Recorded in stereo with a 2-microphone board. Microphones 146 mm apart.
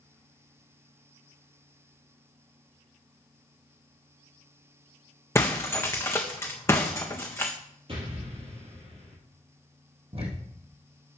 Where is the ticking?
45° right (ahead or behind), 3 m.